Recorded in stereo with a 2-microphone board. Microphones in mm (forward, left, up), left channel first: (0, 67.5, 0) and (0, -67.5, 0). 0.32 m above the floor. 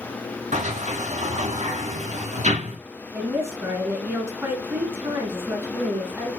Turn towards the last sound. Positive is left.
turn(degrees=-20)  # may be behind; listen again after turning